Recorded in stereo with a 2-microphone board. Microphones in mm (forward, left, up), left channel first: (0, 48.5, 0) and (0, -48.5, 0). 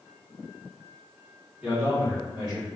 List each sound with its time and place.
1.6 s a man speaking: 15° right (ahead or behind), 1.0 m; by 2.7 s 55° right (ahead or behind), 1.9 m